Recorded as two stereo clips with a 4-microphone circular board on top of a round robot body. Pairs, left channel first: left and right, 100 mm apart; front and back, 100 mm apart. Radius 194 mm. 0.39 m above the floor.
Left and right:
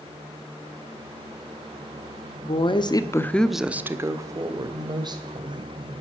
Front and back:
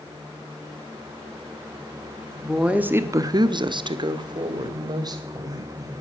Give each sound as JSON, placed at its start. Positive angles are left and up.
{"t": 2.4, "sound": "a woman speaking", "azimuth_deg": 95, "distance_m": 1.5}